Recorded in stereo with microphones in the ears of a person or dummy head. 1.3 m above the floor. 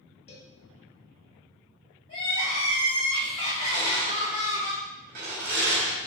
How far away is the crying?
About 1.2 m.